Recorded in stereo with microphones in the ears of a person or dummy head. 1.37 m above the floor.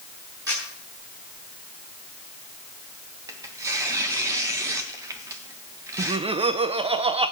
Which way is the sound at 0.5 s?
15° right (ahead or behind).